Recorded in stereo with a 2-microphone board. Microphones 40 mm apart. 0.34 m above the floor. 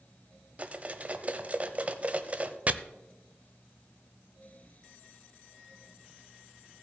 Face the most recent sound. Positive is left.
turn(degrees=-40)  # may be behind; listen again after turning